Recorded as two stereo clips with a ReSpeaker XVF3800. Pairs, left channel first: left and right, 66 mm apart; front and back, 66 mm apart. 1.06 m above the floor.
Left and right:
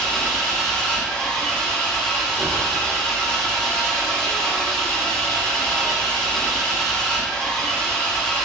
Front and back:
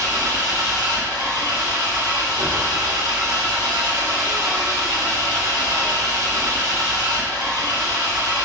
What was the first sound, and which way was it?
An engine running, 165° left.